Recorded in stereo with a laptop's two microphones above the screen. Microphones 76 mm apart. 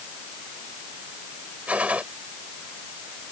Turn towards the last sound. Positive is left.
turn(degrees=-20)  # may be behind; listen again after turning